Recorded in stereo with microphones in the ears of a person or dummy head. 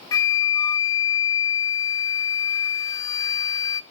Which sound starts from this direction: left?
A flute, at 0.1 s.